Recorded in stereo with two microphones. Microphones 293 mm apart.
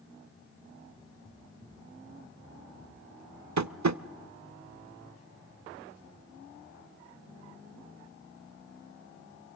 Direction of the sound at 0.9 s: 15° left (ahead or behind).